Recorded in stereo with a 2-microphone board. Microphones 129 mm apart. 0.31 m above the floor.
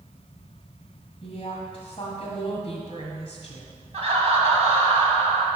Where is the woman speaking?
45° left (ahead or behind), 1.6 m.